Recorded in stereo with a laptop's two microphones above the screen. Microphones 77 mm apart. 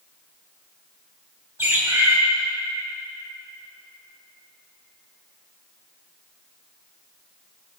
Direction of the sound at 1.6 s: 40° right (ahead or behind).